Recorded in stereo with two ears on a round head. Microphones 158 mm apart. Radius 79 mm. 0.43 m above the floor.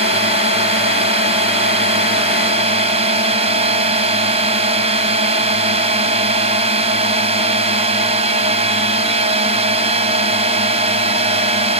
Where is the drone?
35° right (ahead or behind).